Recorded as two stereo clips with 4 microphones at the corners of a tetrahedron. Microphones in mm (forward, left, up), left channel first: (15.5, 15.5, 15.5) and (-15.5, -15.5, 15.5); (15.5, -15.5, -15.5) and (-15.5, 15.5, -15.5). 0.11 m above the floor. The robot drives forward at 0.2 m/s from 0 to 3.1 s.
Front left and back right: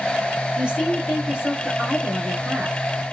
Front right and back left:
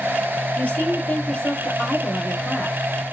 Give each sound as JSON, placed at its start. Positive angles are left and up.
{"t": 0.6, "sound": "a woman speaking", "azimuth_deg": -75, "distance_m": 1.6}